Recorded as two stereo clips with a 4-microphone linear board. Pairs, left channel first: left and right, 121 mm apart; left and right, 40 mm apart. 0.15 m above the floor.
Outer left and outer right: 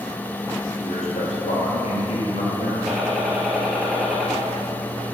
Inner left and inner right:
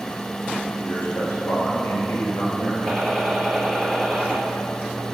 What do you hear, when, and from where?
0.8 s a man speaking: 65° left (ahead or behind), 3 m; by 2.8 s 55° left (ahead or behind), 4 m
2.9 s a gunshot: centre (ahead or behind), 2.5 m